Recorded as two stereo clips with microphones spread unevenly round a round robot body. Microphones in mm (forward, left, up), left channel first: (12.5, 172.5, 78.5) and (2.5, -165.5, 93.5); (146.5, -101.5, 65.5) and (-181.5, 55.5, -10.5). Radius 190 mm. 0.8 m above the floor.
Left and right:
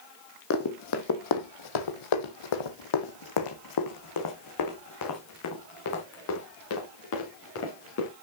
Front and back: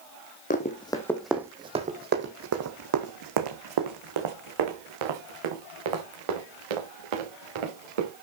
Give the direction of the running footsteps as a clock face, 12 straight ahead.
11 o'clock.